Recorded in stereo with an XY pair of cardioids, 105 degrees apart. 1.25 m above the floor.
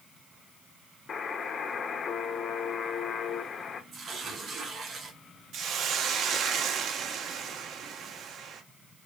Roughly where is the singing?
No singing in this recording.